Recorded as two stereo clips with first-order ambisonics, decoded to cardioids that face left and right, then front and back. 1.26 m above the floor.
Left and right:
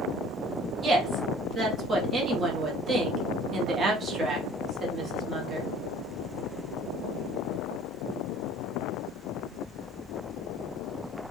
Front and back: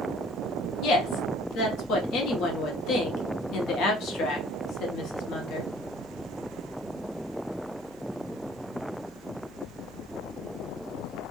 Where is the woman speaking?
30° right, 0.8 m.